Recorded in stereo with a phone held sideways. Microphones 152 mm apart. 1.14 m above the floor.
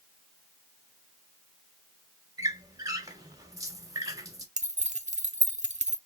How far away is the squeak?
About 0.8 m.